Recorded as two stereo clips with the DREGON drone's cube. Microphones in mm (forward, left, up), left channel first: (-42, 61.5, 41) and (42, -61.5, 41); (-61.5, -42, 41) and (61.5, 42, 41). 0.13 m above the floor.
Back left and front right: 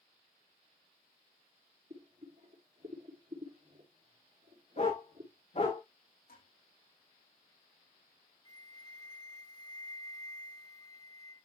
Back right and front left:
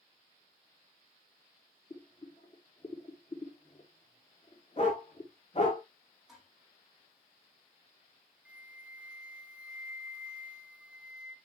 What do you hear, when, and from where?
1.9 s boiling: 95° right, 4 m
4.8 s a dog barking: 165° left, 5.5 m
6.3 s dishes clattering: 120° left, 5 m
8.4 s a flute: 105° left, 1.6 m